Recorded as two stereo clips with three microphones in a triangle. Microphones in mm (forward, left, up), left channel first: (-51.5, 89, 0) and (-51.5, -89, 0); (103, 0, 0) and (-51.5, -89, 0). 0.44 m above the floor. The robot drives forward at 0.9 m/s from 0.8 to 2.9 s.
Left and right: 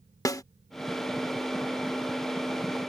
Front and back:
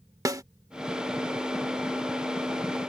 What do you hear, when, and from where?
0.2 s a snare drum: 150° left